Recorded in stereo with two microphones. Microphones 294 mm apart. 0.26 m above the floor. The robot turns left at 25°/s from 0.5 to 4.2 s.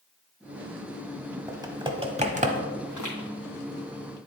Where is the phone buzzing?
I don't hear a phone buzzing.